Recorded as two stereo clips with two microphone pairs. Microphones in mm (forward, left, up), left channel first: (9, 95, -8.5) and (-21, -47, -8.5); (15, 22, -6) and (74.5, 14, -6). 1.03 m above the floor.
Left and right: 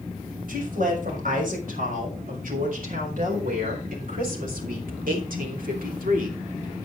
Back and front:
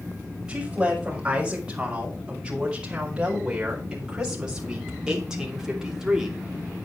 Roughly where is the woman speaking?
Right.